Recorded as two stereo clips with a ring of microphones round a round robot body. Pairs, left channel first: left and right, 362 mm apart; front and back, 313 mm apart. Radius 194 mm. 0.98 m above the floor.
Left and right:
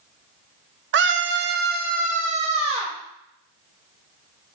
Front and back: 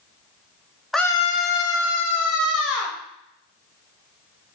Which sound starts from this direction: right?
A scream, at 0.9 s.